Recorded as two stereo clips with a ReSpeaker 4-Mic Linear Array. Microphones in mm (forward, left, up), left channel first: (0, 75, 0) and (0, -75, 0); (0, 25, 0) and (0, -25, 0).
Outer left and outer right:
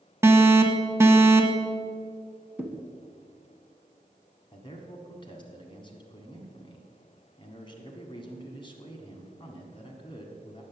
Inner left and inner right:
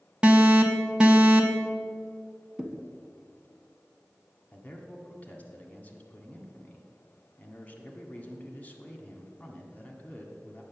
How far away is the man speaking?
About 1.5 m.